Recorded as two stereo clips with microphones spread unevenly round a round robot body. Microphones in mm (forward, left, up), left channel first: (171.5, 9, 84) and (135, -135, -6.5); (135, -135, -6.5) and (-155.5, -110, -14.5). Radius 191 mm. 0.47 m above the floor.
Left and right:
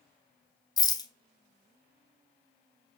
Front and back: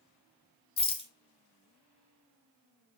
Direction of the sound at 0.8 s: 45° right.